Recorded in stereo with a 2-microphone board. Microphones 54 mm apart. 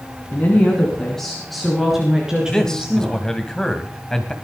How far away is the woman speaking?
About 3.5 m.